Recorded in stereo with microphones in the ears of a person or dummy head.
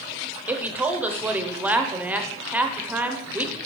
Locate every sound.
0.5 s a woman speaking: 5° right (ahead or behind), 0.7 m